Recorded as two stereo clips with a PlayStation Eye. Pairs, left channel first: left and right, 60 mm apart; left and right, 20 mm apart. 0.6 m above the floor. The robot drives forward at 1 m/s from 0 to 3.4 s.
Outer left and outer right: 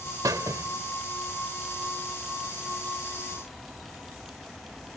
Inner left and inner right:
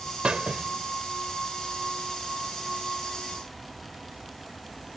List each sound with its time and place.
0.2 s a squeak: 85° right; by 0.7 s 60° right (ahead or behind)